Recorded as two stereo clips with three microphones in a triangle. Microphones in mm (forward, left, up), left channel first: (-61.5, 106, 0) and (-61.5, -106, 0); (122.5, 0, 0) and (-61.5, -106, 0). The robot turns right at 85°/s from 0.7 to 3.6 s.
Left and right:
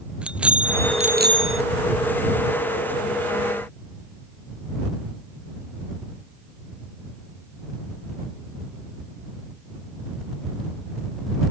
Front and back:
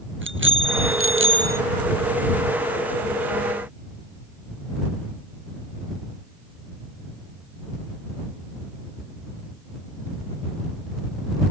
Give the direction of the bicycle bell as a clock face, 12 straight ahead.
6 o'clock.